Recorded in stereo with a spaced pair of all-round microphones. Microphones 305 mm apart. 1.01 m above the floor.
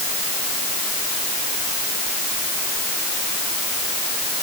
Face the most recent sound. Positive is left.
No sound to turn to.